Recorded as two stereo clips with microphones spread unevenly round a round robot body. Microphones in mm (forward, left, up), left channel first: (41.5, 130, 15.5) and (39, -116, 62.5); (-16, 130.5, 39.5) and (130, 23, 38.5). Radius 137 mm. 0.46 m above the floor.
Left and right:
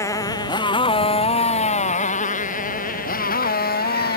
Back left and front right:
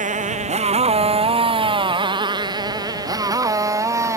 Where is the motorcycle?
10° left; by 4.2 s 35° left.